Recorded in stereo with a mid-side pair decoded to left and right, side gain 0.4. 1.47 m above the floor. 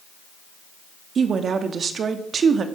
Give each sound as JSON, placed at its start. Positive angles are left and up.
{"t": 1.1, "sound": "a woman speaking", "azimuth_deg": -55, "distance_m": 2.5}